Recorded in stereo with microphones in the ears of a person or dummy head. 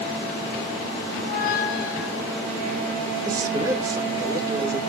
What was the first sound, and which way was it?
A squeak, 50° left (ahead or behind).